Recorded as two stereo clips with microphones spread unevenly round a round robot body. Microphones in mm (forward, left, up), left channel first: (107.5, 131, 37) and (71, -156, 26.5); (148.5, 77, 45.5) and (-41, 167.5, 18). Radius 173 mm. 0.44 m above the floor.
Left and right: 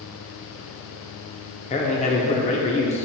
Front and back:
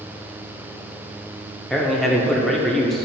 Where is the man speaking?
85° left, 0.8 m.